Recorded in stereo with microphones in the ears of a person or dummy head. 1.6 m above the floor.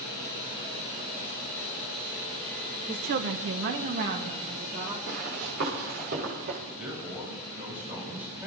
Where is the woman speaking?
25° right (ahead or behind), 0.8 m; by 5.0 s 50° right (ahead or behind), 3 m.